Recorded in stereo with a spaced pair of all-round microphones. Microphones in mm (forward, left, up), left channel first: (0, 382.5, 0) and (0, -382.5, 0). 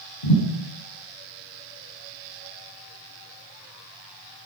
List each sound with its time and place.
0.2 s a thud: 65° left (ahead or behind), 5 m